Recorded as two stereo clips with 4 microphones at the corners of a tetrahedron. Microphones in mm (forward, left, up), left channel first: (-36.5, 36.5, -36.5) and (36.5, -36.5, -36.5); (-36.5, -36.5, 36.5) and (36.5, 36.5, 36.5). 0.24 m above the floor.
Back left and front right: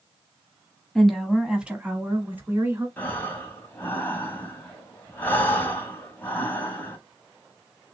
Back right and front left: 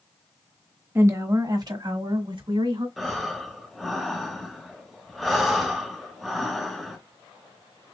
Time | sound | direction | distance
0.9 | a woman speaking | 55° left | 1.0 m
3.0 | breathing | 140° left | 1.0 m